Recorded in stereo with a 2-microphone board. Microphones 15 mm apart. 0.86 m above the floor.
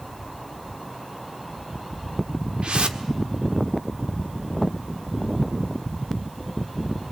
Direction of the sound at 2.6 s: 75° right (ahead or behind).